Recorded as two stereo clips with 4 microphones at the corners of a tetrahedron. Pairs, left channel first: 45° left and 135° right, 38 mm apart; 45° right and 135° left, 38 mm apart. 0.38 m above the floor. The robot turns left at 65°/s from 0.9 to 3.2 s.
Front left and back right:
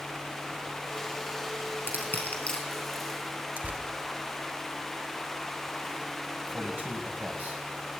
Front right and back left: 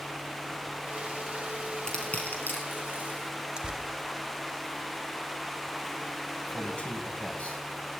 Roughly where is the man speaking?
Right.